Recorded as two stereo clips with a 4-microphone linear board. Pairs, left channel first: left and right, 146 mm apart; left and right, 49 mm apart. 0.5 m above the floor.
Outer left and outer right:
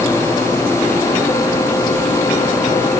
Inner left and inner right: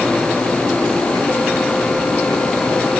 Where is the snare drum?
No snare drum in this recording.